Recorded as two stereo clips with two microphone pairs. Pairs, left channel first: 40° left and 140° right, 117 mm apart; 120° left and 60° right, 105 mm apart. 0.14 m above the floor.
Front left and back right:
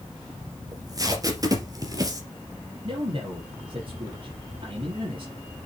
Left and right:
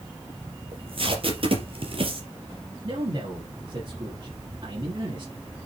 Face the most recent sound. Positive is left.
turn(degrees=-105)